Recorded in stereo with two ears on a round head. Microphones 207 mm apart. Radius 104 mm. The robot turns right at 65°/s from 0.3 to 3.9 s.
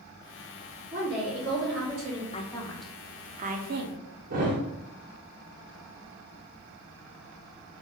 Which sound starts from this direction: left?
A woman speaking, at 2.3 s.